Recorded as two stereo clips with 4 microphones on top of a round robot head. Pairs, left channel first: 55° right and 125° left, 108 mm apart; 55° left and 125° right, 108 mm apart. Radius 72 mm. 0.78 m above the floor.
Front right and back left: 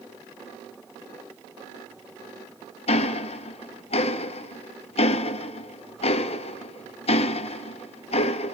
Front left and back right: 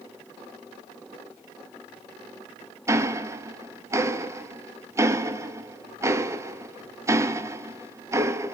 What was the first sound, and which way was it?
Ticking, 65° right.